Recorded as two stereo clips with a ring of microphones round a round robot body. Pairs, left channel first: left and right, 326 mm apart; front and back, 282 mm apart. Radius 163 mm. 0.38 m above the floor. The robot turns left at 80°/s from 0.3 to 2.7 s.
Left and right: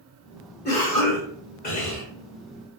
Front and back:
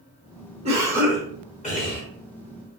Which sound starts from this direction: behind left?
A cough, at 0.7 s.